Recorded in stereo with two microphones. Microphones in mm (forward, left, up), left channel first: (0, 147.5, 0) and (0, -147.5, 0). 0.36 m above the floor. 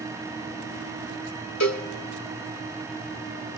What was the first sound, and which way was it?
A cowbell, 65° left (ahead or behind).